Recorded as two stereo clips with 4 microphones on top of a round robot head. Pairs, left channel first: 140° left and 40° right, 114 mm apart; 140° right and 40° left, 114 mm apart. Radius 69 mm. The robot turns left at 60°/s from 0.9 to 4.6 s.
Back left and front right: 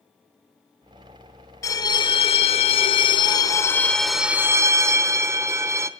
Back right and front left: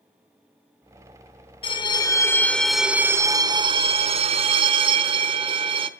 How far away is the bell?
About 0.9 m.